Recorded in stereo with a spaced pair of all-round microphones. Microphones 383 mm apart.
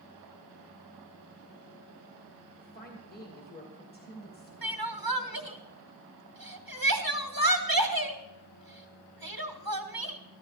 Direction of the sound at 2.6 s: 25° left (ahead or behind).